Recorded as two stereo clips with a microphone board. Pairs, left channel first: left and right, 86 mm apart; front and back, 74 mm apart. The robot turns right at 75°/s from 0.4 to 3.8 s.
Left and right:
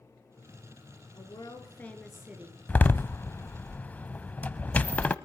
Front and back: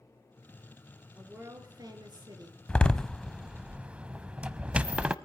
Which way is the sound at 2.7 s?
45° left.